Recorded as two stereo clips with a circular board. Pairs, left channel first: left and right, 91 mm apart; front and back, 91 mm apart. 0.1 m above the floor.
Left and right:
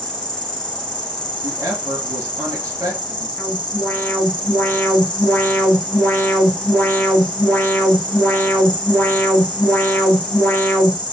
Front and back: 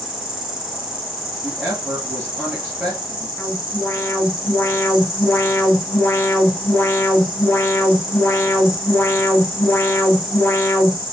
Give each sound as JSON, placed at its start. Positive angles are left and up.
{"t": 0.0, "sound": "an insect", "azimuth_deg": 100, "distance_m": 1.5}
{"t": 1.4, "sound": "a woman speaking", "azimuth_deg": -120, "distance_m": 2.0}
{"t": 3.4, "sound": "an alarm", "azimuth_deg": 35, "distance_m": 1.0}